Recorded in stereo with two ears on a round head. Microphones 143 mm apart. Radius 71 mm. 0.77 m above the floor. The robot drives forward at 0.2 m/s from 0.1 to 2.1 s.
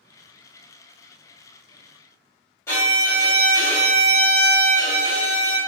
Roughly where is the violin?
Centre.